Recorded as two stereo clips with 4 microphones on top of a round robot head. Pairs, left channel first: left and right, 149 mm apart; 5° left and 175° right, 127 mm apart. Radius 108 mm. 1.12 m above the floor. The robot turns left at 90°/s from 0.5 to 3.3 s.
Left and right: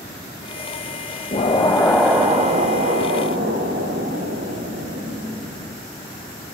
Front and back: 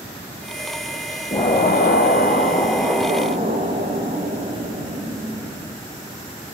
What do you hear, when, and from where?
1.3 s an explosion: 60° left, 1.4 m; by 5.8 s 120° right, 1.4 m